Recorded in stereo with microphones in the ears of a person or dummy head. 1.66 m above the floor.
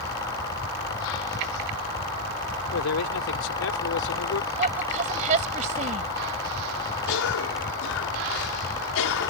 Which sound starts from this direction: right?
A woman speaking, at 4.6 s.